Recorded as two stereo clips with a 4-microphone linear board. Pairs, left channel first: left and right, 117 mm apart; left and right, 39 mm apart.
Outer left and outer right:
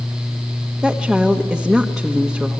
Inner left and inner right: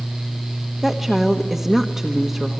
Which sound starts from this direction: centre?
A woman speaking, at 0.8 s.